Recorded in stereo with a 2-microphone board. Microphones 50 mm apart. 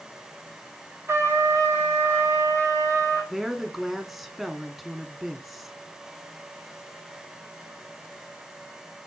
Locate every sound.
1.1 s a trumpet: 50° right (ahead or behind), 3 m
3.3 s a woman speaking: 5° right (ahead or behind), 1.3 m